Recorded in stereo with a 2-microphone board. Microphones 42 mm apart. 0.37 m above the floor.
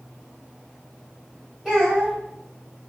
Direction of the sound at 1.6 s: 10° right (ahead or behind).